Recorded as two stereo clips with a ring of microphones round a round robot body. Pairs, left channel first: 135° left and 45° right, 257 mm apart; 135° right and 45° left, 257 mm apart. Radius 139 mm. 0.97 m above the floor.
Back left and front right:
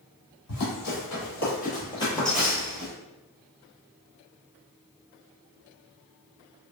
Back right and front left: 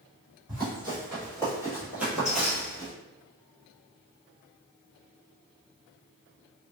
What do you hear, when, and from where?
0.5 s running footsteps: 115° left, 1.7 m; by 2.9 s 65° right, 1.0 m